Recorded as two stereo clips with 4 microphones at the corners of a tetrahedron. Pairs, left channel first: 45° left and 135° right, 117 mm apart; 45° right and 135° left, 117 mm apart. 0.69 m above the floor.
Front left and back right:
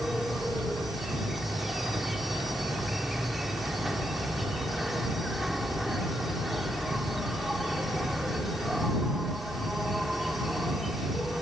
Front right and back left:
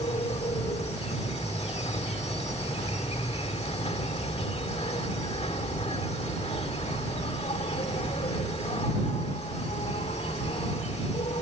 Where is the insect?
45° right.